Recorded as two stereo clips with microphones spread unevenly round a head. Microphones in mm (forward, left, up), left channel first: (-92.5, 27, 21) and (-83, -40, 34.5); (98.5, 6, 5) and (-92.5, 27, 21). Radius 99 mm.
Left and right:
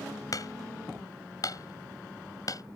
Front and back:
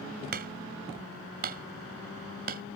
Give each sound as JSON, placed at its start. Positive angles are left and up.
{"t": 0.3, "sound": "hammering", "azimuth_deg": 130}